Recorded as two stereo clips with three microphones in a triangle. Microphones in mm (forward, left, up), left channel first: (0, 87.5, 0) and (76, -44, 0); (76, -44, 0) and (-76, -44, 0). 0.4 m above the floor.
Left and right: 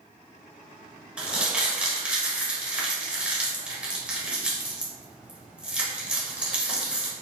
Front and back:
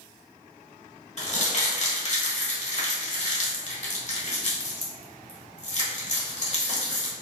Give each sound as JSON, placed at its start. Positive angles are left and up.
{"t": 1.2, "sound": "crumpling", "azimuth_deg": 20, "distance_m": 1.3}